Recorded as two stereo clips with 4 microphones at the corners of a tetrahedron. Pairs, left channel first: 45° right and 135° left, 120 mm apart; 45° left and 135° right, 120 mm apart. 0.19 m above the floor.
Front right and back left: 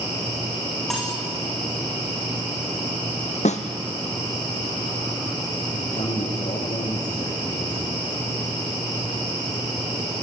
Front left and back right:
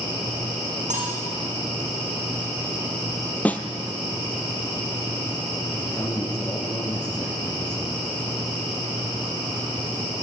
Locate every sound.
0.9 s cutlery clinking: 135° right, 8 m
3.5 s a snare drum: 35° right, 1.4 m
5.7 s a man speaking: 35° right, 5 m